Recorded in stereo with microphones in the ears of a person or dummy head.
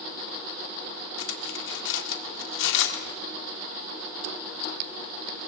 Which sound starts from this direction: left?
Cutlery clinking, at 1.2 s.